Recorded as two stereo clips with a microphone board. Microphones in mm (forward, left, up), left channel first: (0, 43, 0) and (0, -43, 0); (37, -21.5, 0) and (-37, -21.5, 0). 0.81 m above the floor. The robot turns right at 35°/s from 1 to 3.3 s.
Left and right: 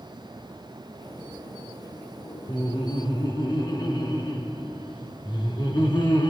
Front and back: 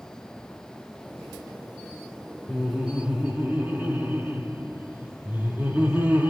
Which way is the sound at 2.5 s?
80° left.